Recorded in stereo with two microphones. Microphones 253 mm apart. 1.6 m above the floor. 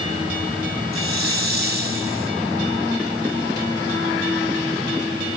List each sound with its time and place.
0.9 s a hiss: 55° left (ahead or behind), 1.4 m